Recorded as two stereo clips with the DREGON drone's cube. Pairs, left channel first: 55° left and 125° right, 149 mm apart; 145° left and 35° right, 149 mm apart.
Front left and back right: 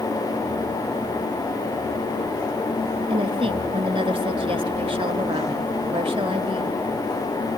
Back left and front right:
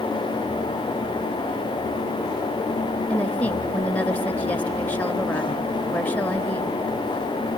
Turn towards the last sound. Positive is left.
turn(degrees=-140)